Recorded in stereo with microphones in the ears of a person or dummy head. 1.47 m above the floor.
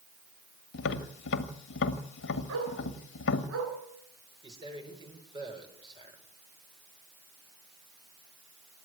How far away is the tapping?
About 1.9 m.